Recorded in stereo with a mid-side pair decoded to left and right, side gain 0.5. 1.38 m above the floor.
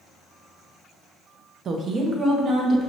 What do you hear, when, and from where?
1.6 s a woman speaking: 50° right, 0.7 m; by 2.9 s 35° right, 1.5 m